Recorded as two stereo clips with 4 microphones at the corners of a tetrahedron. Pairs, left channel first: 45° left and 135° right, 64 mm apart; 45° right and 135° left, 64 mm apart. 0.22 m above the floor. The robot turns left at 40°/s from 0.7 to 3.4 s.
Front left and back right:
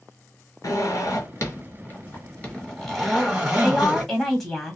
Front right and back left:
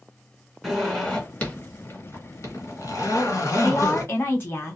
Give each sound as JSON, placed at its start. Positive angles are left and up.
{"t": 0.6, "sound": "a zipper", "azimuth_deg": 45, "distance_m": 1.4}
{"t": 3.6, "sound": "a woman speaking", "azimuth_deg": -35, "distance_m": 1.4}